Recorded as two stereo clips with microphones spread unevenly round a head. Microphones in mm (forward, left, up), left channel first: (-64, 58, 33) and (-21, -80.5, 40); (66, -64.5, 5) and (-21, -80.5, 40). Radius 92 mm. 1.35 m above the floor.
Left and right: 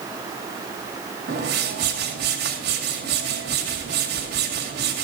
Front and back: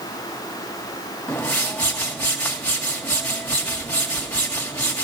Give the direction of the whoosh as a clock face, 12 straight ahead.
2 o'clock.